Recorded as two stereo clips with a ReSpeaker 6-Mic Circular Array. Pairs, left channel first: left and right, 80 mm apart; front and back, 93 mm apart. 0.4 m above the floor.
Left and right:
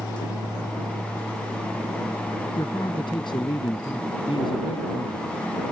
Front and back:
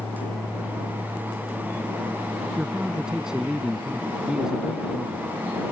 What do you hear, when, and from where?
2.6 s a man speaking: 95° left